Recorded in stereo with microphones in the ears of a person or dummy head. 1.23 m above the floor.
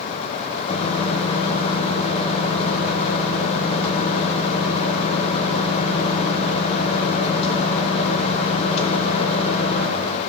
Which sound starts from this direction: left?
A microwave, at 0.7 s.